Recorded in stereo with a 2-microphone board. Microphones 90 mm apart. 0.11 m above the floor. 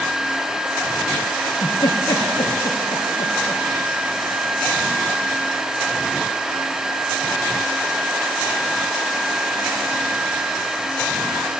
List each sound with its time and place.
1.4 s a giggle: 70° left (ahead or behind), 3.5 m